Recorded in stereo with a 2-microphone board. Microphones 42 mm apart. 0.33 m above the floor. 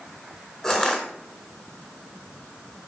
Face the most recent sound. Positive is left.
turn(degrees=10)  # may be behind; listen again after turning